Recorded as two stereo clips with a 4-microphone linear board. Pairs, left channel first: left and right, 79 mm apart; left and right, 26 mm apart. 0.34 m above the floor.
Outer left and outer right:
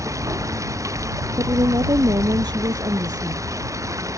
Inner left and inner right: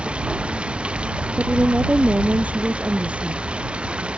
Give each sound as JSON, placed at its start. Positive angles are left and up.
{"t": 0.0, "sound": "running water", "side_deg": -40}
{"t": 1.4, "sound": "a woman speaking", "side_deg": -65}